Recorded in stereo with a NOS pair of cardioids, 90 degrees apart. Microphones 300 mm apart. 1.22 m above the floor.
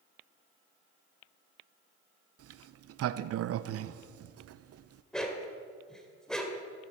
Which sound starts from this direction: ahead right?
A sliding door, at 2.4 s.